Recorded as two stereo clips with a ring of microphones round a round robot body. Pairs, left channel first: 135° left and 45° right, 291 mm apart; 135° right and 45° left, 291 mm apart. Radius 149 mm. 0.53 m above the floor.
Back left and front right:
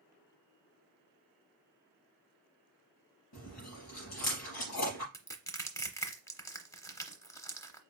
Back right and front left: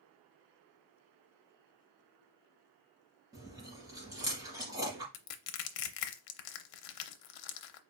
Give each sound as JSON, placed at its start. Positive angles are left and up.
{"t": 3.3, "sound": "chewing", "azimuth_deg": 125, "distance_m": 3.0}
{"t": 5.1, "sound": "crushing", "azimuth_deg": -145, "distance_m": 0.7}